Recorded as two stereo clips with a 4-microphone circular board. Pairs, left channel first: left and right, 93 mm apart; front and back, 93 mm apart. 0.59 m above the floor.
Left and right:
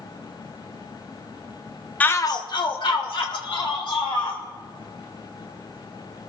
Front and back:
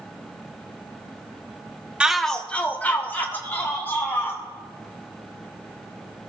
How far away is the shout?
About 0.6 m.